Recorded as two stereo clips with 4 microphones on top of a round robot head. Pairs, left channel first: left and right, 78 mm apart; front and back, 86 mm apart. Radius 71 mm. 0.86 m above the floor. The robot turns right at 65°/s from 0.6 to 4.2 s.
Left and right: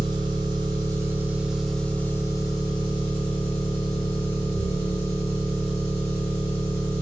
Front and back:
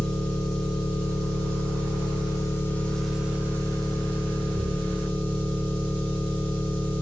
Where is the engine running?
70° right, 0.8 m; by 7.0 s 165° left, 0.8 m.